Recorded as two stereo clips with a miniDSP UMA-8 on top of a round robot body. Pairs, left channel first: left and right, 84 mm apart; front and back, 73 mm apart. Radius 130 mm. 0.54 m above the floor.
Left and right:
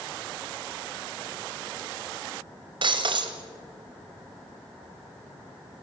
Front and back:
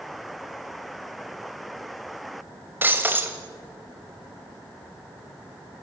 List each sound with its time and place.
2.8 s breaking glass: 115° right, 2 m